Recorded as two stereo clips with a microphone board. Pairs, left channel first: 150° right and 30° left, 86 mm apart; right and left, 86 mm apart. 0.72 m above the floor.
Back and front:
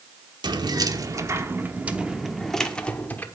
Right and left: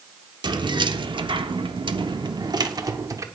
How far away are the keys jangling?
About 1.2 m.